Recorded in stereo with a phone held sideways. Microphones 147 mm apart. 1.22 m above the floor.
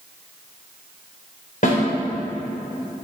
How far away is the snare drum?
About 3 m.